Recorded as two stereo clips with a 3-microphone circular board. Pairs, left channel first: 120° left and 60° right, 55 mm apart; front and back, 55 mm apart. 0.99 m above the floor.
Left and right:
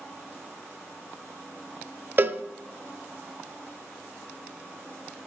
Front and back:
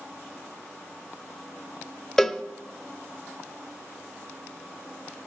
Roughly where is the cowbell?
Right.